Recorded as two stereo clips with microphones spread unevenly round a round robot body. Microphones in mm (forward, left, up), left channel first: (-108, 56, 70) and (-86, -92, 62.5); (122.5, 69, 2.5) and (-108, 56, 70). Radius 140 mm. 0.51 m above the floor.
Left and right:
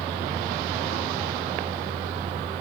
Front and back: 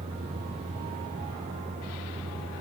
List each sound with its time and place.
0.0 s a vehicle: 105° right